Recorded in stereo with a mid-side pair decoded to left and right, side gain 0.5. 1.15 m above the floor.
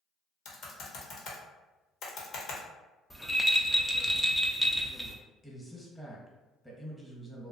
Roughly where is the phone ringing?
No phone ringing in this recording.